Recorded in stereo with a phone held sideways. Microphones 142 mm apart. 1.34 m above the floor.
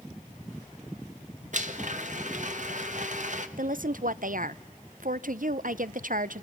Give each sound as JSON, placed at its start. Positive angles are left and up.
{"t": 1.5, "sound": "a blender", "side_deg": -60, "distance_m": 1.4}
{"t": 3.6, "sound": "a woman speaking", "side_deg": -70, "distance_m": 0.6}